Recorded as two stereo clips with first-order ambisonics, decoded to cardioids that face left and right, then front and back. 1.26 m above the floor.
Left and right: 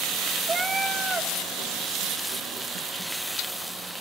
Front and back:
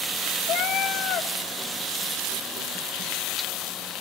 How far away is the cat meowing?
About 0.6 m.